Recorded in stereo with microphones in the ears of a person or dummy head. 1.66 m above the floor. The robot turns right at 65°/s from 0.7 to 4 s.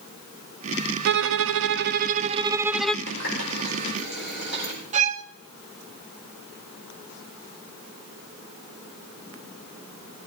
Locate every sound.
1.1 s a violin: 110° right, 0.5 m; by 3.0 s 10° left, 0.5 m
3.1 s a running tap: 65° left (ahead or behind), 5 m; by 4.7 s 50° left (ahead or behind), 5 m
4.9 s a violin: 40° right (ahead or behind), 0.8 m